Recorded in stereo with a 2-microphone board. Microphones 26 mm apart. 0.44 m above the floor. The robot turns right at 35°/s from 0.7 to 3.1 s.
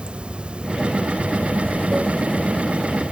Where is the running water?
135° right, 0.7 m; by 3.1 s 50° right, 0.7 m.